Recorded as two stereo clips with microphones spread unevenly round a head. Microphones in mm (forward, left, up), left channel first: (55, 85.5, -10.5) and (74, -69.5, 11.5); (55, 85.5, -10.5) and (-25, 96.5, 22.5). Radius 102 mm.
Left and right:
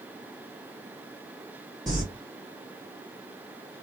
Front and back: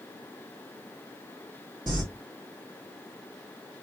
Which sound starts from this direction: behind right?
Crumpling, at 1.9 s.